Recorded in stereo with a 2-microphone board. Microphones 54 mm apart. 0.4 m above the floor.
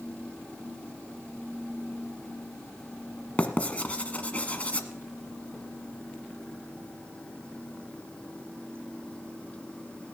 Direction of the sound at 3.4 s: 25° left (ahead or behind).